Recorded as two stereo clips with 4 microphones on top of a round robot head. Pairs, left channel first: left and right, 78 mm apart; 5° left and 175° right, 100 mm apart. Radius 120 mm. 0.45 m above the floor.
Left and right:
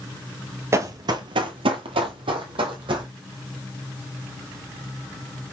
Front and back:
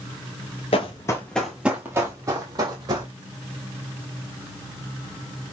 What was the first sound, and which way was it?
Running footsteps, 40° right.